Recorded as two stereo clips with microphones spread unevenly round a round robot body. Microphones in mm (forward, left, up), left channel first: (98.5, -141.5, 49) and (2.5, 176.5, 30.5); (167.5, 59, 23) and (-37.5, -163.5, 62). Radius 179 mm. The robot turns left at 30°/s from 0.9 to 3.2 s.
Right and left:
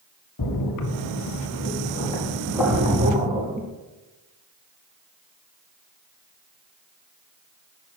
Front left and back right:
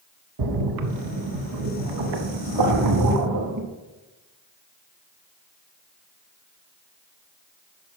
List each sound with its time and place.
0.4 s a splash: 115° right, 0.7 m; by 3.7 s 175° left, 0.7 m